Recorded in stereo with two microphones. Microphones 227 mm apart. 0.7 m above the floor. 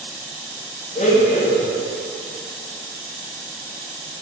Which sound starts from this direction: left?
A blender, at 0.9 s.